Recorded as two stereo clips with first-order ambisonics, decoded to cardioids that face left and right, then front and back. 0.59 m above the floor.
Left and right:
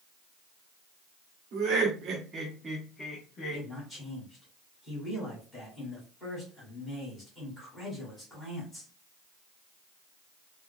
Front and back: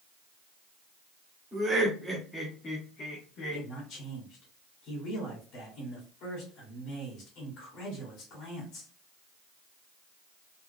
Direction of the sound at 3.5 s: 20° left.